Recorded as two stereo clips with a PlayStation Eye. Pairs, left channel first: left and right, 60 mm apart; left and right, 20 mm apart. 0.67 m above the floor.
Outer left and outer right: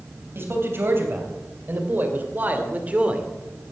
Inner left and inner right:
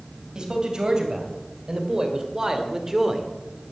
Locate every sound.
0.3 s a man speaking: 45° right (ahead or behind), 3.5 m; by 3.3 s 20° right (ahead or behind), 1.5 m